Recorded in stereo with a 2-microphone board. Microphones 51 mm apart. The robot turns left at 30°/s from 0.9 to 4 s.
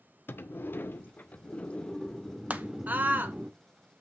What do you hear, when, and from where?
0.3 s a sliding door: 50° left, 0.6 m; by 3.5 s 30° right, 0.6 m
2.5 s a scream: 30° right (ahead or behind), 0.9 m; by 3.4 s 40° right (ahead or behind), 0.9 m